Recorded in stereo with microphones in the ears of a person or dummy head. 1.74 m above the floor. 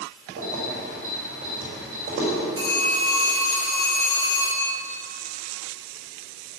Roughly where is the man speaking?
No man speaking in this recording.